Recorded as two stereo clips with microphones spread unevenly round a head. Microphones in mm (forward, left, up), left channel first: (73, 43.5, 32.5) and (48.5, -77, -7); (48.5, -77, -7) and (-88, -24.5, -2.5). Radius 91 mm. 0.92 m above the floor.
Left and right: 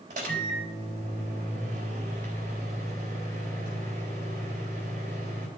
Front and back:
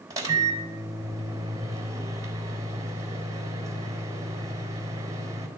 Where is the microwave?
135° right, 3.5 m.